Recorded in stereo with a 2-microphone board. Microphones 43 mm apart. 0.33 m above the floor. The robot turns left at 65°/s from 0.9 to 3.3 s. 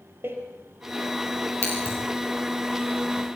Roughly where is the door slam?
Right.